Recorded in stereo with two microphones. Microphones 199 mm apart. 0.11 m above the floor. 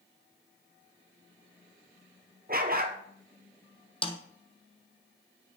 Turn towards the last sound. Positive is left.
turn(degrees=25)  # may be behind; listen again after turning